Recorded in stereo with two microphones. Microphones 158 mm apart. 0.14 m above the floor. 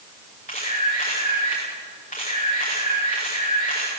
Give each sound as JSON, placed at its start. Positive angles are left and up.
{"t": 0.5, "sound": "a camera shutter", "side_deg": 55, "distance_m": 8.5}